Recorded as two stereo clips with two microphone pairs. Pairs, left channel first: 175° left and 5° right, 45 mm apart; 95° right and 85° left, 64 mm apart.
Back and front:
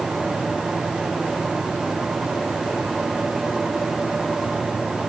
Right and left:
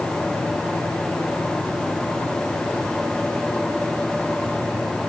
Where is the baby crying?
I don't hear a baby crying.